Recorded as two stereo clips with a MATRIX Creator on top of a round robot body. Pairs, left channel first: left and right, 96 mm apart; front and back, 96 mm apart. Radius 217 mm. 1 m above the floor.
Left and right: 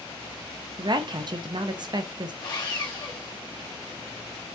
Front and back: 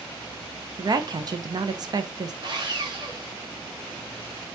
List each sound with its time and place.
0.8 s a woman speaking: 135° right, 0.7 m
2.4 s sawing: 140° left, 2.5 m